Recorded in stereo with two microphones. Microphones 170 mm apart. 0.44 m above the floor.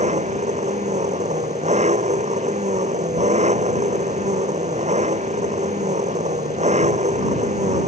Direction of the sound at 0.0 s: 40° right (ahead or behind).